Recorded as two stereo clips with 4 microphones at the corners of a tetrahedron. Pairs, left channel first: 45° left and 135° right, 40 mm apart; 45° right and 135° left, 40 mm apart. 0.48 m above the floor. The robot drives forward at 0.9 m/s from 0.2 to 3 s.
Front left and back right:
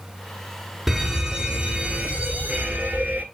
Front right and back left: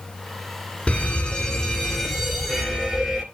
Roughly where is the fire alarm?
Ahead right.